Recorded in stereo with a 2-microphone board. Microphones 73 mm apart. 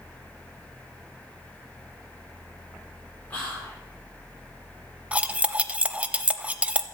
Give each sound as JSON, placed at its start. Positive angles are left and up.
{"t": 3.3, "sound": "whispering", "side_deg": 25, "distance_m": 6.5}
{"t": 5.1, "sound": "cutlery clinking", "side_deg": -20, "distance_m": 0.6}